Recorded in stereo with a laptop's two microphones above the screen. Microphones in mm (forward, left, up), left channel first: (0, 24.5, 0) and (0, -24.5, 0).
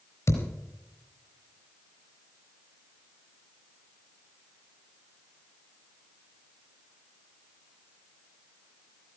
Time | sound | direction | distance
0.3 | a thud | 60° left (ahead or behind) | 4 m